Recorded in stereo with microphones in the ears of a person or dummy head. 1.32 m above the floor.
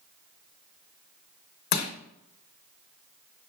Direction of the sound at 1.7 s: 55° left (ahead or behind).